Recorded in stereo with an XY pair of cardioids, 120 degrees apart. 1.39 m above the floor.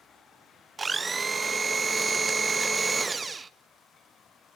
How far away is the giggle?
No giggle in this recording.